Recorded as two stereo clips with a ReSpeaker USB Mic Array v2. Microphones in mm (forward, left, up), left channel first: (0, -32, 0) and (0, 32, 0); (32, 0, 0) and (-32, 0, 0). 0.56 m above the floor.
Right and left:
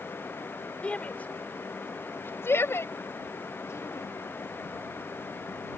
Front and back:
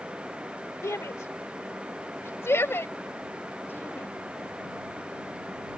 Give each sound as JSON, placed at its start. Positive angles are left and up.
{"t": 0.8, "sound": "a shout", "azimuth_deg": -25}